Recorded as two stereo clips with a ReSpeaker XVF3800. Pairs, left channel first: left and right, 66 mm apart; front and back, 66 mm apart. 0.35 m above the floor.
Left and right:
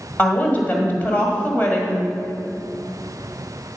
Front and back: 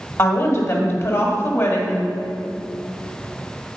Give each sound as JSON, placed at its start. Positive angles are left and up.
{"t": 0.2, "sound": "a woman speaking", "azimuth_deg": 30, "distance_m": 1.5}